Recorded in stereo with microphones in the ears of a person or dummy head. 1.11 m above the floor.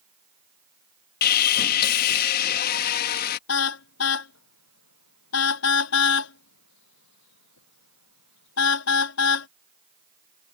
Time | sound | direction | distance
1.2 | sawing | 50° left (ahead or behind) | ?
3.5 | a car horn | 80° left | ?